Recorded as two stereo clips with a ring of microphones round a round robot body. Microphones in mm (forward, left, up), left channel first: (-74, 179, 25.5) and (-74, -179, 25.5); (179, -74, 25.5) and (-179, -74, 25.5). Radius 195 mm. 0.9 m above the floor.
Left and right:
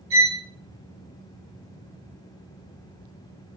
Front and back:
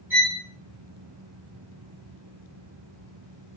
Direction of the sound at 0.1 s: 95° right.